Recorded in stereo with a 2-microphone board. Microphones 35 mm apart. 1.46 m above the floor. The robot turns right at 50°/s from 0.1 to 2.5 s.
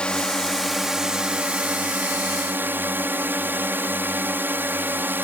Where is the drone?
150° left; by 5.2 s 90° right.